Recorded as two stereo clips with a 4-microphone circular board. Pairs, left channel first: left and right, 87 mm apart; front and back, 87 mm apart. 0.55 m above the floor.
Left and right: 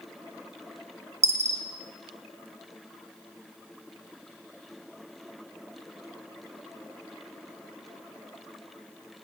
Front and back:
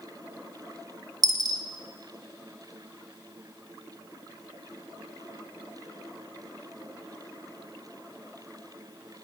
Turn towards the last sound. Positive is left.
turn(degrees=-140)